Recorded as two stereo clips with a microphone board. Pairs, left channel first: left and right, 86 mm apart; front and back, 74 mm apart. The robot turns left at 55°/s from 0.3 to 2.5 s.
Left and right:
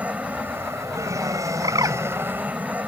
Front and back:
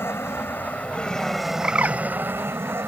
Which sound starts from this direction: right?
A bird, at 1.6 s.